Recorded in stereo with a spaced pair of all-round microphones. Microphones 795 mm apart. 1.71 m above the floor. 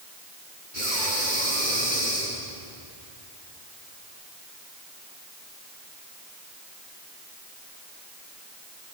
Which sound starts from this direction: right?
Breathing, at 0.7 s.